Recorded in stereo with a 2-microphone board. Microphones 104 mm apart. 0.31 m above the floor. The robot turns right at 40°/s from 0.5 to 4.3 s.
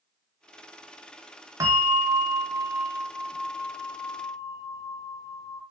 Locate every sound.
1.6 s a bell: 50° right, 0.6 m; by 5.6 s 55° left, 0.6 m